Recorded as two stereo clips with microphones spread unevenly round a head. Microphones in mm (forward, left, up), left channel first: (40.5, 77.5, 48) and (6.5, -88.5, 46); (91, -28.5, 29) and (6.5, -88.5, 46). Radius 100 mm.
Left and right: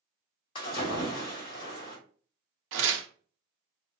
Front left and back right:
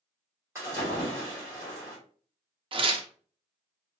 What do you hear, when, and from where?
0.6 s a splash: 140° left, 1.7 m
2.7 s tearing paper: 105° right, 0.6 m